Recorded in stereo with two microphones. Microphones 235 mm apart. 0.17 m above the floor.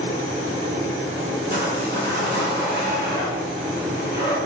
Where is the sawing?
45° right (ahead or behind), 1.8 m.